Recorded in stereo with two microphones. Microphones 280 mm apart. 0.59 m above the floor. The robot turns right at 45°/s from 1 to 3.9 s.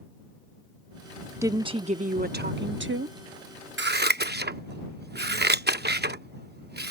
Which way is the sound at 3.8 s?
40° right (ahead or behind).